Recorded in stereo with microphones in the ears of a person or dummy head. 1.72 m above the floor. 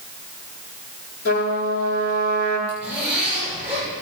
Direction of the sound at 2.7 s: 10° right (ahead or behind).